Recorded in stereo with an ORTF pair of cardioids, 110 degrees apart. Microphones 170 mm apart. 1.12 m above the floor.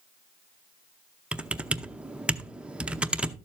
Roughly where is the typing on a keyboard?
Ahead.